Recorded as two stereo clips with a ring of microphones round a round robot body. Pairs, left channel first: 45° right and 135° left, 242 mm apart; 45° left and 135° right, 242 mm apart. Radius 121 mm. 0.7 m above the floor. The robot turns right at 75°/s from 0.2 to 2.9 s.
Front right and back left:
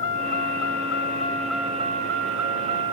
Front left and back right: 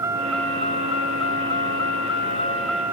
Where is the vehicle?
55° right; by 2.9 s 145° left.